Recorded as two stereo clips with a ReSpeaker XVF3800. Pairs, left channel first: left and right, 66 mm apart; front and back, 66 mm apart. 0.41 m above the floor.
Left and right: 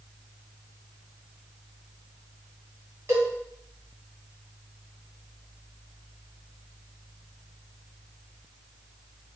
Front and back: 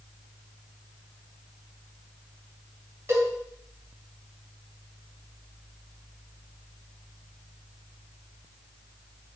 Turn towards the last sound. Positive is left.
turn(degrees=-130)